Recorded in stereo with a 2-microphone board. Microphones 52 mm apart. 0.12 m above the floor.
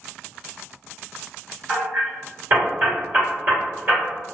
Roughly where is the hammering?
Right.